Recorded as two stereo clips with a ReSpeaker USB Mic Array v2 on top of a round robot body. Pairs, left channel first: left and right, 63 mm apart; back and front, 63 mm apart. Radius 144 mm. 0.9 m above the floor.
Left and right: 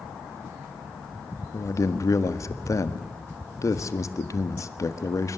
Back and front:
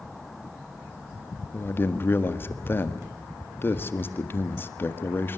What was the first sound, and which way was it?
A man speaking, 125° left.